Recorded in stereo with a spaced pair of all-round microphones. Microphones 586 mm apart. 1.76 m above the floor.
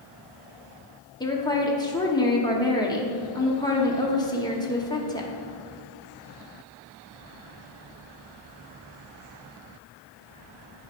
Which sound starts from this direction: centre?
A woman speaking, at 1.2 s.